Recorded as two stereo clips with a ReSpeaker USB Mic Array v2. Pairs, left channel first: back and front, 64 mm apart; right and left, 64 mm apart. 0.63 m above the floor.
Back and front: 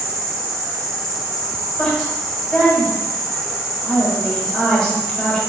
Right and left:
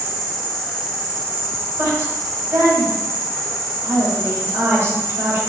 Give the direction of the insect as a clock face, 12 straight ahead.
3 o'clock.